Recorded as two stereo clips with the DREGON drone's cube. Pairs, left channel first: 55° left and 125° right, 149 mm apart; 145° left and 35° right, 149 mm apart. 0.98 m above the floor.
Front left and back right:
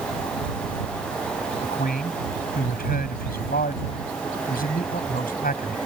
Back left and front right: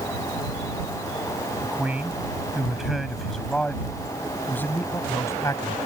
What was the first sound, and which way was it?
A man speaking, 45° left.